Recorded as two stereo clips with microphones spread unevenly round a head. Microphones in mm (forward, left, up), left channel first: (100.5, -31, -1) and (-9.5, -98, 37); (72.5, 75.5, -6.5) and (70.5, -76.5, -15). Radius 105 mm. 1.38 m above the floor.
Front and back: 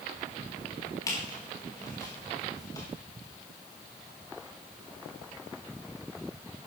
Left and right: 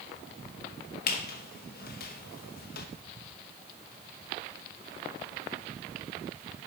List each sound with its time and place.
1.1 s a squeak: 110° left, 1.0 m